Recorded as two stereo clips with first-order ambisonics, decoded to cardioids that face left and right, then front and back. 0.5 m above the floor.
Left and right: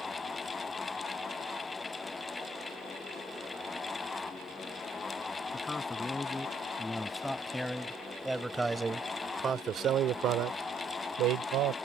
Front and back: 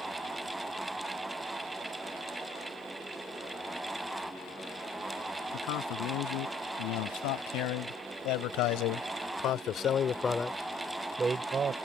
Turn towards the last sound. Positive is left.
turn(degrees=-120)